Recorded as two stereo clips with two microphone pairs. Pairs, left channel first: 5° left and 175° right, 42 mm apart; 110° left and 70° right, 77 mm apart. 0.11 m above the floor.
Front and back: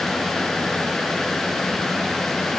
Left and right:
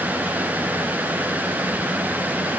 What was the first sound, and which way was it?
Only background noise.